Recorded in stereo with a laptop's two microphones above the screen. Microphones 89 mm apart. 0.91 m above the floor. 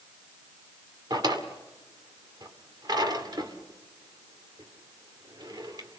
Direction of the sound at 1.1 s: 50° right (ahead or behind).